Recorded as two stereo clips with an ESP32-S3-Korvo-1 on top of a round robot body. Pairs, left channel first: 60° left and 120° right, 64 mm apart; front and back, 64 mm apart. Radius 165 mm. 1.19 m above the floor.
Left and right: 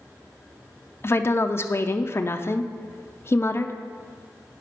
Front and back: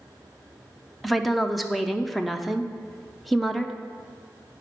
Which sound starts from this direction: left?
A woman speaking, at 1.0 s.